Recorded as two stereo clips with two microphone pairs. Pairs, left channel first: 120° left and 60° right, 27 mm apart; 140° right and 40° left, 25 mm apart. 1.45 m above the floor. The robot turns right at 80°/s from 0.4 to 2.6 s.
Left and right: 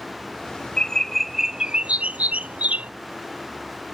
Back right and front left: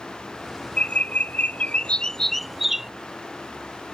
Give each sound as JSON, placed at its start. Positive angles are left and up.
{"t": 0.8, "sound": "a bird", "azimuth_deg": 175}